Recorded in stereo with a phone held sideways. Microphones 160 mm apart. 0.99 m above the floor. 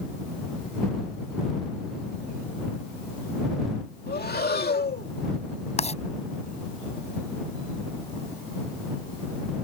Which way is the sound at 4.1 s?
75° left (ahead or behind).